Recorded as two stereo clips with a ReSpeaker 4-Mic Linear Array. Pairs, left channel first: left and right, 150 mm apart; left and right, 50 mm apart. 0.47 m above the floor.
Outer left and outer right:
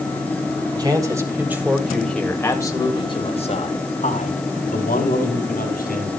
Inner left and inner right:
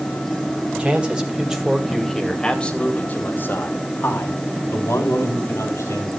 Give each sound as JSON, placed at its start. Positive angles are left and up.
{"t": 0.8, "sound": "a man speaking", "side_deg": -25, "distance_m": 3.0}